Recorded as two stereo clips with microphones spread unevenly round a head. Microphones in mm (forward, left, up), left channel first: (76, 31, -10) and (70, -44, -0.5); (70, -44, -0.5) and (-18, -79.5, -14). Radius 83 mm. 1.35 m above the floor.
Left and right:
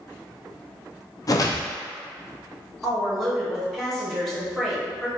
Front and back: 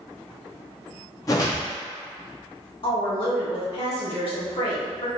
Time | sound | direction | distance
1.3 | a whoosh | 60° left | 0.5 m
2.8 | a woman speaking | straight ahead | 1.4 m